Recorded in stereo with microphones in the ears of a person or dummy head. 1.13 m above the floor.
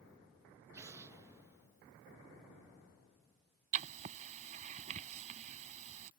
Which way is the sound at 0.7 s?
15° right (ahead or behind).